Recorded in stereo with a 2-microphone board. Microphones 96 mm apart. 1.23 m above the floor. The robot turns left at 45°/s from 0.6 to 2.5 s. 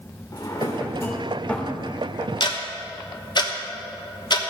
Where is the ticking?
55° left (ahead or behind), 1.1 m; by 4.5 s 50° left (ahead or behind), 1.1 m.